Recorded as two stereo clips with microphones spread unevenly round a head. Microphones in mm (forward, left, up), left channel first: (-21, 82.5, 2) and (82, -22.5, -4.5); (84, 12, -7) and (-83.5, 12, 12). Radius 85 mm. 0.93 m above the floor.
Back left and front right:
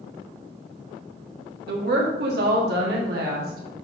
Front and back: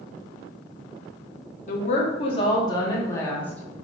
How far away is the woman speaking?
About 1.8 m.